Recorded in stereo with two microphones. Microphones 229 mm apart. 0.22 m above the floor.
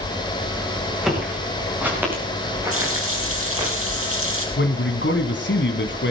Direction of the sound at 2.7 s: 75° right (ahead or behind).